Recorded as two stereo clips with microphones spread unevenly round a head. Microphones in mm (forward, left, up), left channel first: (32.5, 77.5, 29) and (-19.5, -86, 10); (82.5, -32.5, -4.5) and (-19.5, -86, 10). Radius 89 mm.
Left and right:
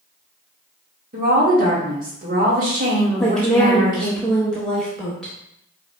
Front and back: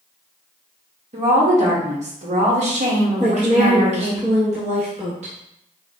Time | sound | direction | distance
1.1 | a woman speaking | 140° right | 1.6 m
3.2 | a woman speaking | 160° left | 0.9 m